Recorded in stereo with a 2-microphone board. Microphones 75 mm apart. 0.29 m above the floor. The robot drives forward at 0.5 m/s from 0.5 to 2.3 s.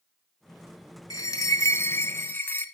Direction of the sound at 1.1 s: 60° left (ahead or behind).